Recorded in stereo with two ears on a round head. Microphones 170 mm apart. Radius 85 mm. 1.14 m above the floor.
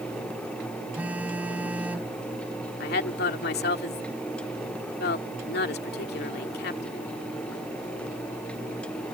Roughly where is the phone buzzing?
Centre.